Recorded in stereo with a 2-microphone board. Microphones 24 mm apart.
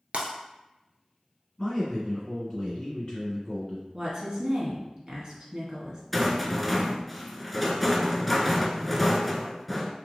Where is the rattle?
5° left (ahead or behind), 0.5 m.